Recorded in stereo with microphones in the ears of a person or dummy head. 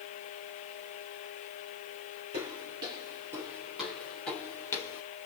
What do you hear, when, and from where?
2.3 s footsteps: 30° right (ahead or behind), 2.5 m; by 5.0 s 20° left (ahead or behind), 3 m